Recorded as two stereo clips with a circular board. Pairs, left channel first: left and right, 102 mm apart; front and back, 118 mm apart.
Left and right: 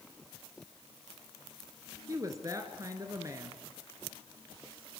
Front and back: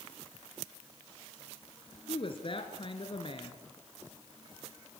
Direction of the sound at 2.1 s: 35° right.